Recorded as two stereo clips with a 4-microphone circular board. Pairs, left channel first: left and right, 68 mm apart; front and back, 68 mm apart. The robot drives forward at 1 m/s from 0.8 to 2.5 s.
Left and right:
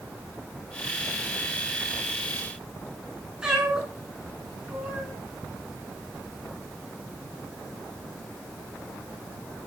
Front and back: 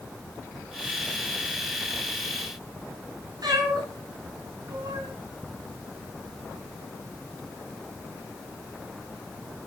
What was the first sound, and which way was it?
A cat meowing, 170° right.